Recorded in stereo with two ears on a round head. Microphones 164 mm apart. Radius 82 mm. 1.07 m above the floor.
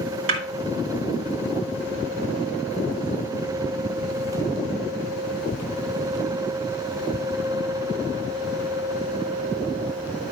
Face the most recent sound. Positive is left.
turn(degrees=-80)